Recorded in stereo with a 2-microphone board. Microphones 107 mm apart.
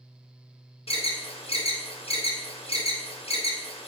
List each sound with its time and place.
0.9 s an alarm: 65° left (ahead or behind), 0.6 m